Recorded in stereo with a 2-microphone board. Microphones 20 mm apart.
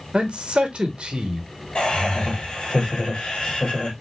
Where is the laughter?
55° left (ahead or behind), 1.3 m.